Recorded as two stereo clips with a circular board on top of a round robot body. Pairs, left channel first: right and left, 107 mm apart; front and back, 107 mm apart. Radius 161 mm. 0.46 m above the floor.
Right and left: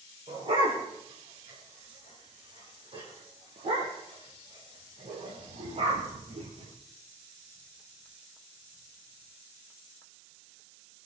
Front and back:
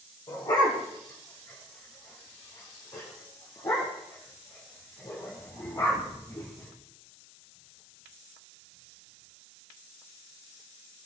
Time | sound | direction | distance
0.3 | a dog barking | 50° left | 7 m